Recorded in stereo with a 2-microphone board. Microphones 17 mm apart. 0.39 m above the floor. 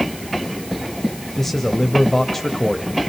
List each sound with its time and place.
1.4 s a man speaking: 20° left (ahead or behind), 1.4 m